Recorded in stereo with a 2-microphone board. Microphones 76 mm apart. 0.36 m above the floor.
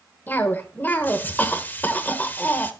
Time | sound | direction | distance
0.3 | a cough | 25° left (ahead or behind) | 1.3 m